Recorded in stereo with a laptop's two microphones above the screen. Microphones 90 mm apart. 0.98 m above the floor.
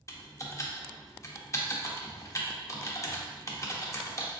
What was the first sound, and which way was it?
Typing on a keyboard, 35° left (ahead or behind).